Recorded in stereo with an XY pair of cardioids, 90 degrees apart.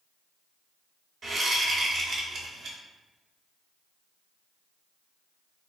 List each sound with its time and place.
1.2 s a whoosh: 55° right, 0.7 m